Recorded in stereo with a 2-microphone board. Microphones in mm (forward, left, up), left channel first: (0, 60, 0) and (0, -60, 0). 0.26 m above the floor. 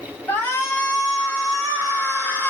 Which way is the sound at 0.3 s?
20° left (ahead or behind).